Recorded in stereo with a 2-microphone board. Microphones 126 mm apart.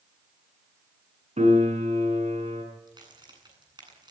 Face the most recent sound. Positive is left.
turn(degrees=-35)  # may be behind; listen again after turning